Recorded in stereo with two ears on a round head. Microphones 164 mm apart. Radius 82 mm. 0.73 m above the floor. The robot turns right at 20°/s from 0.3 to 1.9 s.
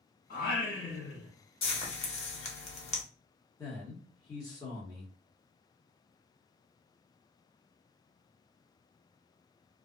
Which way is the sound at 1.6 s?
30° left (ahead or behind).